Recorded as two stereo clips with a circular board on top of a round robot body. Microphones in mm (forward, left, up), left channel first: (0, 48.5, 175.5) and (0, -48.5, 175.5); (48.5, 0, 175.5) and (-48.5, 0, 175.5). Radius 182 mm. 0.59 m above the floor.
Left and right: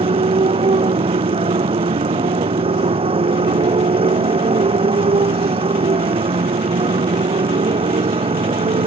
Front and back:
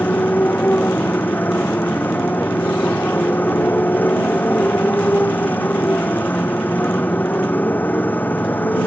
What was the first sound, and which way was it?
A motorcycle, 70° right.